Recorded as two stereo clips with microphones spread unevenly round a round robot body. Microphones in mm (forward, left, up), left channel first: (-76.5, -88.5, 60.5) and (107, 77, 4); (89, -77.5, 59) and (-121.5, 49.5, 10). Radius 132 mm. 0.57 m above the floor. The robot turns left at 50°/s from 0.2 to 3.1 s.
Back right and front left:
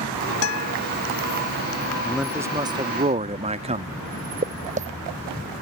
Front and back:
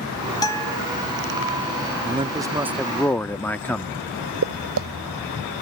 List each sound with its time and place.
0.4 s a guitar: 110° right; by 0.8 s 130° right
2.0 s a man speaking: 115° left; by 4.0 s 65° left
4.4 s footsteps: 110° left